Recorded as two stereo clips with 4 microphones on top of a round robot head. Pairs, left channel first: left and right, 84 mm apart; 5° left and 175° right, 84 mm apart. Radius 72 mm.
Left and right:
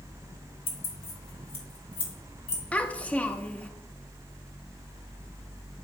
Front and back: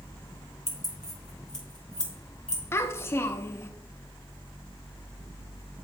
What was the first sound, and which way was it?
Keys jangling, 85° left.